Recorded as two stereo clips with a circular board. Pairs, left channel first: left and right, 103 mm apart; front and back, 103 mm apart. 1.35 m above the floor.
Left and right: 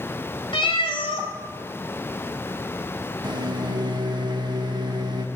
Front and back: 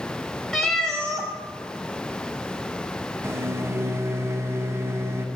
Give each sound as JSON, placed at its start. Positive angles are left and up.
{"t": 0.5, "sound": "a cat meowing", "azimuth_deg": 85, "distance_m": 1.5}
{"t": 3.2, "sound": "a microwave", "azimuth_deg": -120, "distance_m": 0.7}